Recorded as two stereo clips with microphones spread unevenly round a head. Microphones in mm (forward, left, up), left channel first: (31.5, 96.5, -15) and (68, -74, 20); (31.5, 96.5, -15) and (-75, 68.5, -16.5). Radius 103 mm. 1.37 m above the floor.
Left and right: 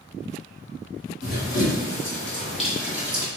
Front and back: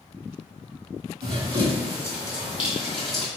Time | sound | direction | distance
1.2 | running footsteps | 175° left | 1.8 m